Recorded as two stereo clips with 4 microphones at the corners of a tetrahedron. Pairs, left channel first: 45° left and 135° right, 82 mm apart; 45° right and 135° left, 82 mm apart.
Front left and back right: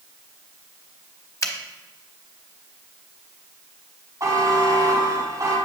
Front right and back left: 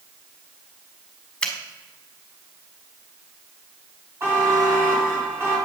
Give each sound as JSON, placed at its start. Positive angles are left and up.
{"t": 1.4, "sound": "a finger snap", "azimuth_deg": 30, "distance_m": 1.0}
{"t": 4.2, "sound": "a buzzer", "azimuth_deg": -175, "distance_m": 2.5}